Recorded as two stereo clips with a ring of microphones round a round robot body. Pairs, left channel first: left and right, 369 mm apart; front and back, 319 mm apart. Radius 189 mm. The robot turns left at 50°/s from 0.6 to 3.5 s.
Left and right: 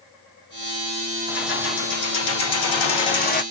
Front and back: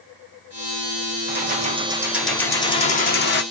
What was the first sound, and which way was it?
Keys jangling, 140° left.